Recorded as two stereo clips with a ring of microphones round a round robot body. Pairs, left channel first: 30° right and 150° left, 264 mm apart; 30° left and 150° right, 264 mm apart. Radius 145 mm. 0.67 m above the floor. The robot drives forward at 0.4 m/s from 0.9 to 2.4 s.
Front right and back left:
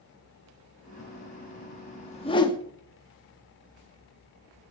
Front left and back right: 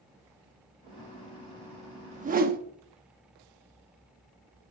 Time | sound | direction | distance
2.1 | a whoosh | 90° right | 0.9 m